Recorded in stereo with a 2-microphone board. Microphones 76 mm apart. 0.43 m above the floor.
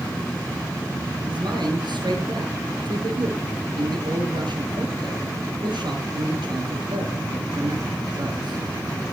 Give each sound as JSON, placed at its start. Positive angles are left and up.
{"t": 1.3, "sound": "a man speaking", "side_deg": -80, "distance_m": 7.0}